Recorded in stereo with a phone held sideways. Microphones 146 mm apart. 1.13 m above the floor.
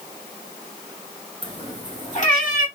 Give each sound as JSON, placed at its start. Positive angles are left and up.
{"t": 1.4, "sound": "a cat meowing", "side_deg": 30, "distance_m": 1.1}